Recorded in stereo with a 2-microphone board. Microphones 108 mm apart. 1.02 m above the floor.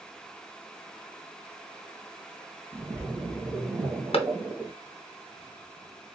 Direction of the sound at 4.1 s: 60° left (ahead or behind).